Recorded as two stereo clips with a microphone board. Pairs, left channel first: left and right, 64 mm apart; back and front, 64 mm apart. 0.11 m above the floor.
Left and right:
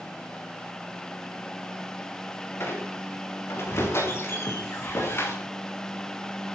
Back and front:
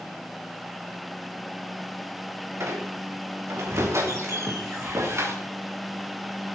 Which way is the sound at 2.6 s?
45° left.